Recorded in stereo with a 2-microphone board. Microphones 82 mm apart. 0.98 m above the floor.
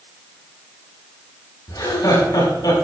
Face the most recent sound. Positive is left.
turn(degrees=60)  # may be behind; listen again after turning